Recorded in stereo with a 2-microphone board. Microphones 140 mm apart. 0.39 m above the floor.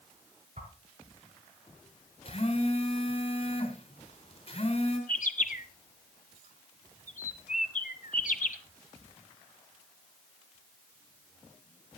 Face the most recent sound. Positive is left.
turn(degrees=75)  # may be behind; listen again after turning